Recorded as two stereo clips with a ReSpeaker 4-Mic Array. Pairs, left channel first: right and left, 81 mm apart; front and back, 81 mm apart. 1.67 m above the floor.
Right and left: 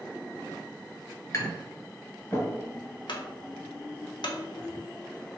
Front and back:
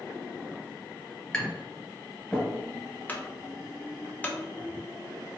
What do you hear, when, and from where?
1.3 s tapping: 65° right, 1.7 m
3.1 s a clunk: 70° right, 0.6 m